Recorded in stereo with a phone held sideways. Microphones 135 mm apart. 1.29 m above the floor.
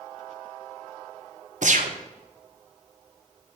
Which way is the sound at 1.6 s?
65° right (ahead or behind).